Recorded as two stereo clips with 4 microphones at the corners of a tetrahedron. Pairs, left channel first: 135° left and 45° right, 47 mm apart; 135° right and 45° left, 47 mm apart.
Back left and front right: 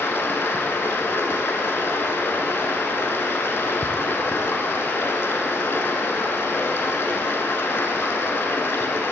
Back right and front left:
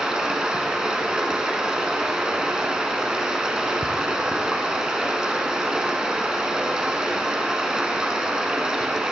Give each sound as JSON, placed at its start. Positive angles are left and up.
{"t": 0.0, "sound": "running water", "azimuth_deg": 115, "distance_m": 1.1}